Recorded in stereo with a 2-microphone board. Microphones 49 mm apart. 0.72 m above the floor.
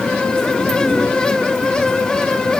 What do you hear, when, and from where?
Only background noise.